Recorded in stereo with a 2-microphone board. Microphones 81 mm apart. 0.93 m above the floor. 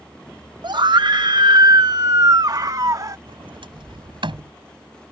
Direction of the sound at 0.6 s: 60° right (ahead or behind).